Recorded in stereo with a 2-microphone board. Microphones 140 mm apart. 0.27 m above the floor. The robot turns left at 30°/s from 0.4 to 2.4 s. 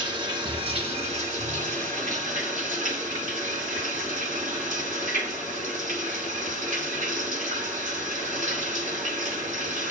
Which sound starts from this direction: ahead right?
Running water, at 0.0 s.